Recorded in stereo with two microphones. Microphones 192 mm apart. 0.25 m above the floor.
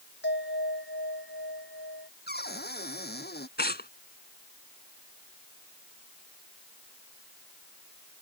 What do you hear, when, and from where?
0.2 s a bell: 70° left (ahead or behind)
2.3 s a cupboard door: 55° left (ahead or behind)
3.6 s tearing paper: 60° left (ahead or behind)